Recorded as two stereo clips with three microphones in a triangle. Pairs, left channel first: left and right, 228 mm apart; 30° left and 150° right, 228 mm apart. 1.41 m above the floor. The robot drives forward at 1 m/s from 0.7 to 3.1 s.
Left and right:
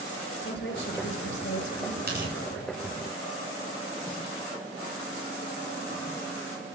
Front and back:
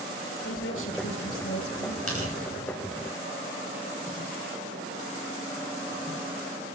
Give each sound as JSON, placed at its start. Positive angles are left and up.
{"t": 0.4, "sound": "a woman speaking", "azimuth_deg": 55, "distance_m": 6.0}
{"t": 2.1, "sound": "tearing paper", "azimuth_deg": -135, "distance_m": 10.0}